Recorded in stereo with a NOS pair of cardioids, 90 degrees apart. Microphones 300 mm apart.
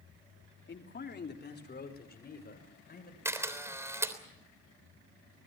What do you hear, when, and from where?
0.7 s a man speaking: 35° left, 3 m; by 3.1 s 30° left, 6.5 m
3.2 s a camera shutter: 10° right, 3.5 m